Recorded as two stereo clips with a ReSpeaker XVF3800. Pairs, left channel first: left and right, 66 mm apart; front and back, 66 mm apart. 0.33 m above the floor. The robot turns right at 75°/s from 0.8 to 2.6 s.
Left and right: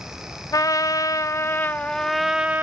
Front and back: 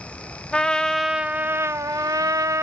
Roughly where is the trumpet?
Left.